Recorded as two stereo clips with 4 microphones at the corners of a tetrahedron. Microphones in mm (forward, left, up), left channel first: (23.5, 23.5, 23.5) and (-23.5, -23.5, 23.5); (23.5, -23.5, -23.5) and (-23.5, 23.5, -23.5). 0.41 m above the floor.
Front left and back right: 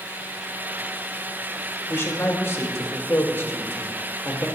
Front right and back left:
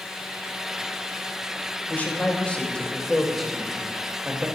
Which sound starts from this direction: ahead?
A man speaking, at 1.9 s.